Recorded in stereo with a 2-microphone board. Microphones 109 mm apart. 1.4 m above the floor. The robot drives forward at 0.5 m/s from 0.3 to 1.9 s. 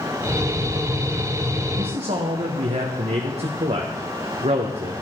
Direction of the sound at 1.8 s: 75° right (ahead or behind).